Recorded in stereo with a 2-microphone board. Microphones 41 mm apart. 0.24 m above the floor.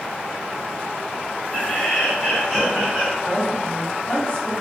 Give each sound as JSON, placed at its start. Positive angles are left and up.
{"t": 1.5, "sound": "laughter", "side_deg": 30, "distance_m": 1.5}
{"t": 3.2, "sound": "a woman speaking", "side_deg": 25, "distance_m": 1.2}